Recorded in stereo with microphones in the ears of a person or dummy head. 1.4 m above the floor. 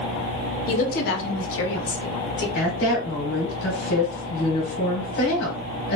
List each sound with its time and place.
0.7 s a woman speaking: 35° left (ahead or behind), 0.6 m; by 2.5 s 75° left (ahead or behind), 1.4 m
2.5 s a woman speaking: 70° left (ahead or behind), 1.1 m